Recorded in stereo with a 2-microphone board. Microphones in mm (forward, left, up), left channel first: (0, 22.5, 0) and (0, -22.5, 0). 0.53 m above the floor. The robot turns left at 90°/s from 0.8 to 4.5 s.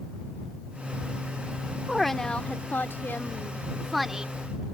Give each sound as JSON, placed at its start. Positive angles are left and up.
{"t": 1.9, "sound": "a woman speaking", "azimuth_deg": -175}